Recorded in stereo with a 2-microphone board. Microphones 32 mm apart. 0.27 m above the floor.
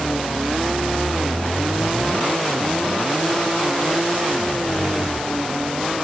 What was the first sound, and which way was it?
Only background noise.